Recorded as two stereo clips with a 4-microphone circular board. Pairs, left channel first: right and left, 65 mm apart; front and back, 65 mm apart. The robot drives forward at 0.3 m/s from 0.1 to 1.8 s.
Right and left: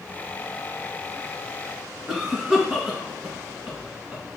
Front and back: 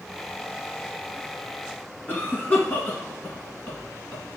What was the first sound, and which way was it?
A cough, 45° left.